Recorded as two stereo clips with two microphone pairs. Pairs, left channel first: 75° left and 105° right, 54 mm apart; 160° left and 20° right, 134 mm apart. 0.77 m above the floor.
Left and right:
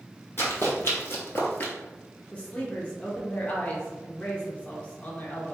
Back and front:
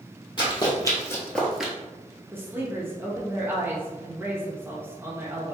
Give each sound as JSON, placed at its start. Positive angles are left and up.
{"t": 0.4, "sound": "running footsteps", "azimuth_deg": 110, "distance_m": 1.5}
{"t": 2.3, "sound": "a woman speaking", "azimuth_deg": 40, "distance_m": 0.8}